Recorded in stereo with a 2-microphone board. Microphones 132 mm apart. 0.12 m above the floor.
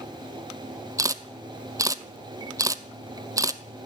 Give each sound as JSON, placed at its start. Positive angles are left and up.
{"t": 1.0, "sound": "a camera shutter", "side_deg": -25, "distance_m": 0.5}